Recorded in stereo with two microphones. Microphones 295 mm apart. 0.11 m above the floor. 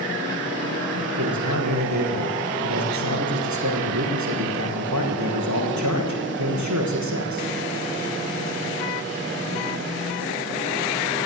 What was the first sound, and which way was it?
A man speaking, 70° right (ahead or behind).